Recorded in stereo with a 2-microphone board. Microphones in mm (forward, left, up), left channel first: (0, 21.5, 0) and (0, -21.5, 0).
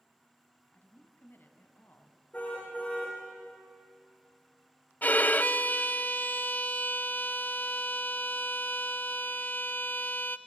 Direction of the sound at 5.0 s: 40° left (ahead or behind).